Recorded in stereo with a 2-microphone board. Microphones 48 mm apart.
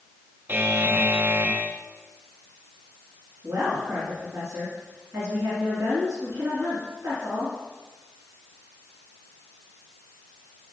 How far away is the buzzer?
About 0.5 m.